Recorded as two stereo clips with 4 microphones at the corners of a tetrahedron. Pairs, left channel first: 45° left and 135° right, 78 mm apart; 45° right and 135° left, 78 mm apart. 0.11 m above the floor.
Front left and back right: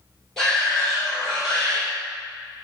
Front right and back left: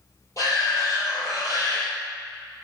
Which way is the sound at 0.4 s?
35° right.